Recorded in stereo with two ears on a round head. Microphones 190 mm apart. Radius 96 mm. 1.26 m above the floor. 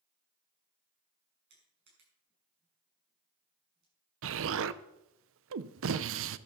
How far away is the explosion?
About 0.6 m.